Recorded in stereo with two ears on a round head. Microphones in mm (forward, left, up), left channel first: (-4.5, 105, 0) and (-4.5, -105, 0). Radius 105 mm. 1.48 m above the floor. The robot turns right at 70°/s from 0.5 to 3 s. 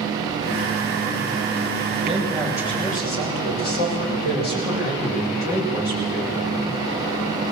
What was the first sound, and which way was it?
A man speaking, 25° right.